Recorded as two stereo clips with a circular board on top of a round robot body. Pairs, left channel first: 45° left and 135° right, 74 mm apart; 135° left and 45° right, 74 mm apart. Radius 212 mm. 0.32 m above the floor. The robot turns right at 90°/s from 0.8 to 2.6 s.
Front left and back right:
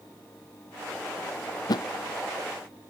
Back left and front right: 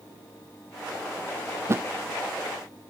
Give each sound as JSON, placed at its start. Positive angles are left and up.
{"t": 1.7, "sound": "a thud", "azimuth_deg": 10, "distance_m": 0.8}